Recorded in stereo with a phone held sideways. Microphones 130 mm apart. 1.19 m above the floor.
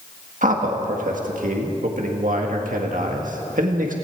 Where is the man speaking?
85° right, 1.7 m.